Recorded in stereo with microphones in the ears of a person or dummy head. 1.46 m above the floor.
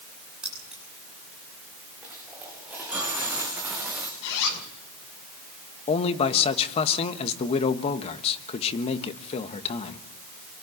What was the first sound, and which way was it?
Keys jangling, 5° right (ahead or behind).